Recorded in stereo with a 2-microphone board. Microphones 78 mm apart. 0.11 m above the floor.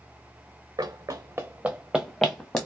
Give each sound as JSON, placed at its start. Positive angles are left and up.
{"t": 0.8, "sound": "running footsteps", "side_deg": -60, "distance_m": 0.6}